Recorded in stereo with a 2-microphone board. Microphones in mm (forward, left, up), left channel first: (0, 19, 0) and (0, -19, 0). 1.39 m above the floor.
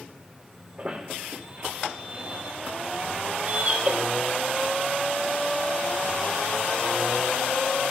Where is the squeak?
30° right (ahead or behind), 3.5 m.